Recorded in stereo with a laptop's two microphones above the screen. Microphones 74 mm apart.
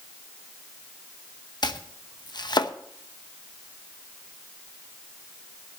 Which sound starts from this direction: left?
Chopping, at 1.6 s.